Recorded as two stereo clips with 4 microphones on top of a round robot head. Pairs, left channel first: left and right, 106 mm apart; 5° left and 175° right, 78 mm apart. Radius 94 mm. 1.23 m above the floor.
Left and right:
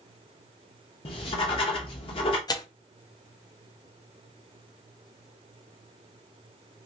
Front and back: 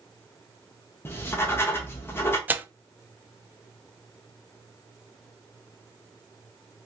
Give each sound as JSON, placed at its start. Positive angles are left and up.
{"t": 1.1, "sound": "writing", "azimuth_deg": 60, "distance_m": 0.7}
{"t": 2.5, "sound": "tearing paper", "azimuth_deg": 125, "distance_m": 0.5}